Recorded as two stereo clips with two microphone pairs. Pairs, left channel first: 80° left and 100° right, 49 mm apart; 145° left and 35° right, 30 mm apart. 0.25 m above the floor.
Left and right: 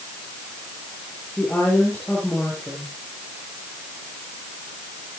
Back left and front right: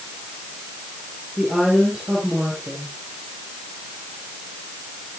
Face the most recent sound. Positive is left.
turn(degrees=25)